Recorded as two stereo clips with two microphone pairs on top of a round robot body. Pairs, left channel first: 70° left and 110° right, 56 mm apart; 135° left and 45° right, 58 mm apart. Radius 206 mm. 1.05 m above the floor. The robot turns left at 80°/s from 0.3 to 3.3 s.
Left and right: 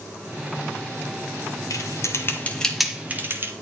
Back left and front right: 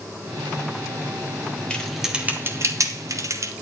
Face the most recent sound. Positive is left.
turn(degrees=-65)